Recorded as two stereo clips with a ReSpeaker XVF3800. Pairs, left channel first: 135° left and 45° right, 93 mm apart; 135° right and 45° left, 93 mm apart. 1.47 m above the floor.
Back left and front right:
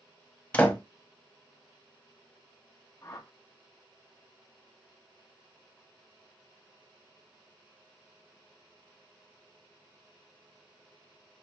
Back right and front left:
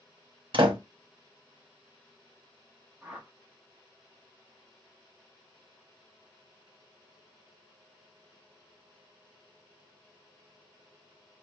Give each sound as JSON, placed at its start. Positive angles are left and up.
{"t": 0.5, "sound": "a door slam", "azimuth_deg": 65, "distance_m": 0.8}
{"t": 3.0, "sound": "a whoosh", "azimuth_deg": 115, "distance_m": 0.9}